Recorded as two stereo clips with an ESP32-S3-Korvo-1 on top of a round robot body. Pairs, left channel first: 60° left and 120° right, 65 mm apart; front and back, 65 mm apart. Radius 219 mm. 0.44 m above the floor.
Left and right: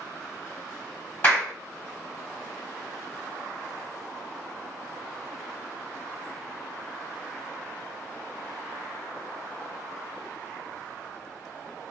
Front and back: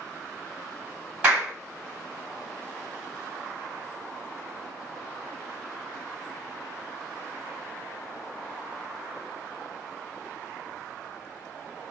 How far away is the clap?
About 1.8 m.